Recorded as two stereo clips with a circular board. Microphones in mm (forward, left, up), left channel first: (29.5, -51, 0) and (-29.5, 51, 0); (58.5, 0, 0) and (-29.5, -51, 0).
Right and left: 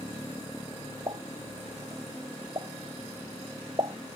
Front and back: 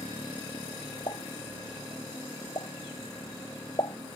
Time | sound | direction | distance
1.1 | a pop | 70° left | ?